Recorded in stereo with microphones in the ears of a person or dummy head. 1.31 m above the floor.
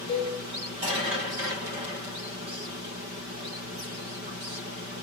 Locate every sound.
0.1 s a cowbell: 20° left (ahead or behind), 0.6 m